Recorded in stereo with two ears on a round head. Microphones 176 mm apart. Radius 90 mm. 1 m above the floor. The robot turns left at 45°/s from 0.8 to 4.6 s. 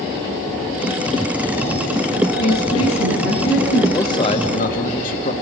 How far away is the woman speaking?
About 8.5 m.